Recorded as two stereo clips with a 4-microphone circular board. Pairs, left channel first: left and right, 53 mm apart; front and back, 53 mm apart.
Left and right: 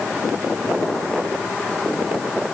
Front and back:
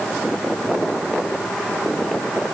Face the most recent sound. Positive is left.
No sound to turn to.